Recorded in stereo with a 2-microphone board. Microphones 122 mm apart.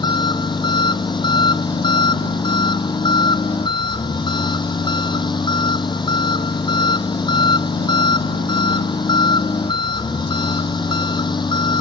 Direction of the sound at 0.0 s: 35° left (ahead or behind).